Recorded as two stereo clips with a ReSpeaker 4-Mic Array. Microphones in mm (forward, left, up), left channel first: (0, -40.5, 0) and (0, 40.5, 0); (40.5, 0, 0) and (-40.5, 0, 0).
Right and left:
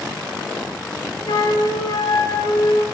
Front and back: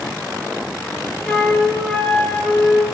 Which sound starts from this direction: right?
A flute, at 1.2 s.